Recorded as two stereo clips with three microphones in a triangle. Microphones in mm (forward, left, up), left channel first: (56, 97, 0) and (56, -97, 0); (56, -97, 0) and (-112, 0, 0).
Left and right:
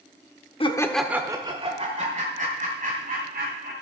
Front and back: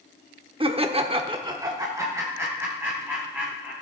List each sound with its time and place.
0.6 s laughter: 120° left, 0.8 m; by 3.7 s 130° right, 3.5 m